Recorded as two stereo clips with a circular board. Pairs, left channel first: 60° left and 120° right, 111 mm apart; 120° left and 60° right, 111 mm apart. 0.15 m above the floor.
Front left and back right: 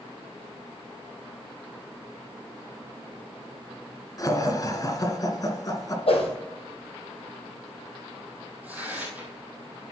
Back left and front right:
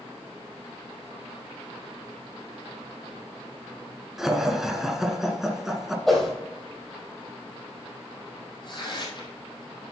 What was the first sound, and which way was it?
Laughter, 25° left.